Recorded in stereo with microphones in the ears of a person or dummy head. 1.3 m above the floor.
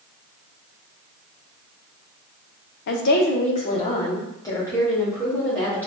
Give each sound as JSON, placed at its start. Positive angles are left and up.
{"t": 2.9, "sound": "a woman speaking", "side_deg": 60, "distance_m": 0.7}